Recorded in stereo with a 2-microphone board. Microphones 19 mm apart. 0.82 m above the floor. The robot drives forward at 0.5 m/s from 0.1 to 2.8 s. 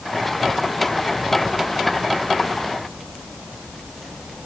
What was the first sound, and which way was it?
Only background noise.